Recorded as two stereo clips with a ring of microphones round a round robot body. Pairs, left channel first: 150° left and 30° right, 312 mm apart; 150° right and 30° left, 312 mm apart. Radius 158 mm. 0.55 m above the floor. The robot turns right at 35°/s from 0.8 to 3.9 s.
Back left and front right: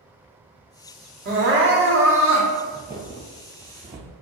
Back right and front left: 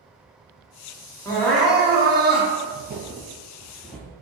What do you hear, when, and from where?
1.2 s crying: 75° right, 1.0 m; by 2.5 s 30° right, 1.0 m
2.7 s footsteps: 40° left, 0.6 m; by 4.1 s 65° right, 0.6 m